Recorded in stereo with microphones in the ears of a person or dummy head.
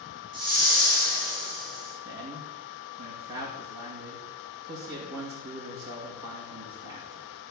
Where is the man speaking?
20° right (ahead or behind), 2.5 m.